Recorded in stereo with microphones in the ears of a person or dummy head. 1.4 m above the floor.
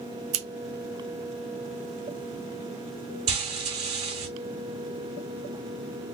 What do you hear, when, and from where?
0.3 s scissors: 80° right, 1.3 m
3.3 s frying: 20° right (ahead or behind), 1.3 m